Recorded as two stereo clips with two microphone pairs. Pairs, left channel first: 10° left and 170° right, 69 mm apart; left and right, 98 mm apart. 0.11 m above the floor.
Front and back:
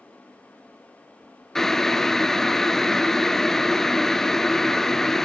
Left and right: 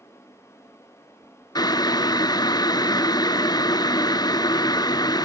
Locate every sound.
1.6 s boiling: 90° left, 0.6 m